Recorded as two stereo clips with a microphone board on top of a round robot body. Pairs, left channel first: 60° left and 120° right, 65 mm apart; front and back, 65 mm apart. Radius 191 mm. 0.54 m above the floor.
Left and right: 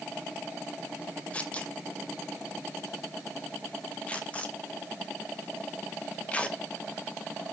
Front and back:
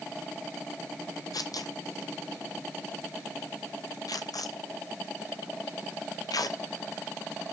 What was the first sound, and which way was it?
Tearing paper, 10° right.